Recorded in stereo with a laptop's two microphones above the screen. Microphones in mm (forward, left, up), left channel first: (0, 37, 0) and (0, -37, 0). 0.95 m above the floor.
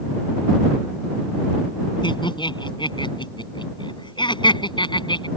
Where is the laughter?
75° left (ahead or behind).